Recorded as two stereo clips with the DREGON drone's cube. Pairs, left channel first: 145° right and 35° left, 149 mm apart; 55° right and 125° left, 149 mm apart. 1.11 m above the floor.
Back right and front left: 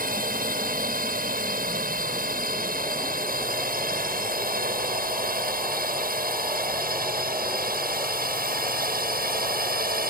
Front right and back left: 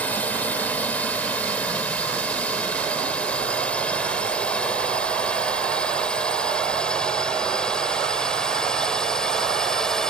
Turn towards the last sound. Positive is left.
turn(degrees=30)